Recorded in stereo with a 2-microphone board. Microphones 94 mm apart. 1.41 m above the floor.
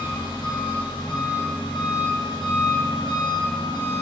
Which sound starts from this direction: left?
An engine running, at 0.0 s.